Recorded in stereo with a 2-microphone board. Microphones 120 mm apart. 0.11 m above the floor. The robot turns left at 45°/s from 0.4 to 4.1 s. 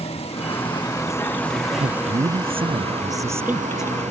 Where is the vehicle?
55° left; by 4.1 s 110° right.